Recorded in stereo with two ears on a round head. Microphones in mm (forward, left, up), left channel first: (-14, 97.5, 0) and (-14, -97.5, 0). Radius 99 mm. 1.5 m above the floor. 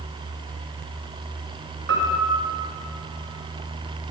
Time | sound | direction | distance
1.9 | a piano | 55° right (ahead or behind) | 1.1 m